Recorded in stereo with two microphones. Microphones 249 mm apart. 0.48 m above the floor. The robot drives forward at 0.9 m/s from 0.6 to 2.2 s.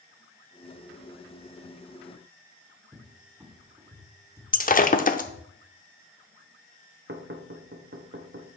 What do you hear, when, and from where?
2.9 s a cupboard door: 10° right (ahead or behind), 1.2 m
4.5 s breaking glass: 35° left (ahead or behind), 0.6 m
7.1 s knocking: 45° right (ahead or behind), 0.8 m